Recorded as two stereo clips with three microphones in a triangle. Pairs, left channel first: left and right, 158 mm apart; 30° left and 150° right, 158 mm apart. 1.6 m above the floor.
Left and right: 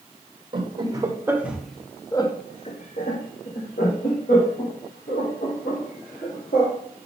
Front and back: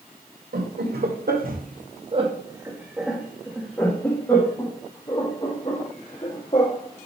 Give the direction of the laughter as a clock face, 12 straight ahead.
5 o'clock.